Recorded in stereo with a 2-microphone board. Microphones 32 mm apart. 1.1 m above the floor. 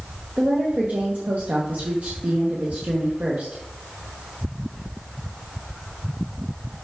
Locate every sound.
0.4 s a woman speaking: 55° right (ahead or behind), 1.0 m